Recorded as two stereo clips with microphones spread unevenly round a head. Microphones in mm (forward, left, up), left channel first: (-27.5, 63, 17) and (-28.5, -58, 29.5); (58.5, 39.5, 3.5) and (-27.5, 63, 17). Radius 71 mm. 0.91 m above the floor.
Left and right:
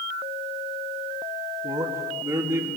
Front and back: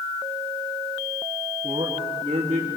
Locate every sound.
1.6 s a man speaking: 135° right, 1.9 m; by 2.7 s 160° right, 2.5 m